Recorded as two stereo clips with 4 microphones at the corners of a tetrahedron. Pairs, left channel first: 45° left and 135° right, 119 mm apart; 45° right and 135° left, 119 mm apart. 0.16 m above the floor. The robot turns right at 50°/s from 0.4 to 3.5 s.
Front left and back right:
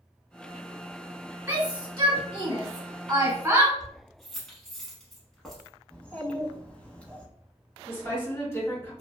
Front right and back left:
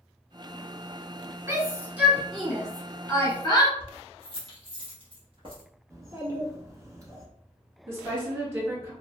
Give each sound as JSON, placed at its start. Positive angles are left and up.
{"t": 1.5, "sound": "a shout", "azimuth_deg": 175, "distance_m": 1.2}
{"t": 3.8, "sound": "keys jangling", "azimuth_deg": 130, "distance_m": 1.1}
{"t": 5.9, "sound": "a child speaking", "azimuth_deg": 115, "distance_m": 0.9}
{"t": 7.9, "sound": "a woman speaking", "azimuth_deg": 85, "distance_m": 1.8}